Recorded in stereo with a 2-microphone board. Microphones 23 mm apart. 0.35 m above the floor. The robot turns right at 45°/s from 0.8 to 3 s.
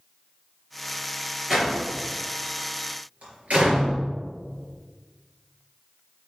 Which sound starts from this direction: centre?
A door slam, at 1.5 s.